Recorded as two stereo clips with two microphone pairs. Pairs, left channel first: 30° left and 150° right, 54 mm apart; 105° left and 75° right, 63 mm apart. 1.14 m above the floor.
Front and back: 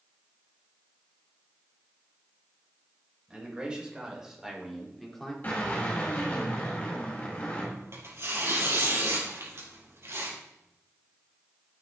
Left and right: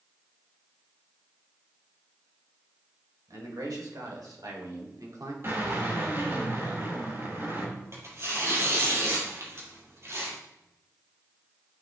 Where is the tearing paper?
120° right, 4.5 m.